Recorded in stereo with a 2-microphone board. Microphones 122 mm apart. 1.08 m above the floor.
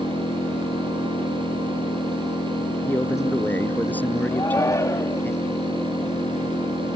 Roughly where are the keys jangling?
I don't hear keys jangling.